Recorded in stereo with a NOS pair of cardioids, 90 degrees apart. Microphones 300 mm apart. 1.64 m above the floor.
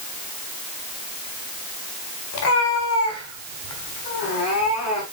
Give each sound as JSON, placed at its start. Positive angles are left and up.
{"t": 2.3, "sound": "a cat meowing", "azimuth_deg": 60, "distance_m": 4.5}